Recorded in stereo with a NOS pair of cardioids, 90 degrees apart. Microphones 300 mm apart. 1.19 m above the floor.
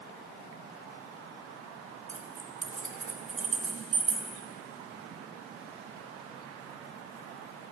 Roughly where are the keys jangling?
Ahead right.